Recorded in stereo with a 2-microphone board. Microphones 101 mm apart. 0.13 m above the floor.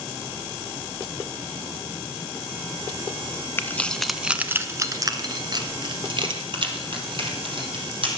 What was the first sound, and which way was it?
Keys jangling, 25° left (ahead or behind).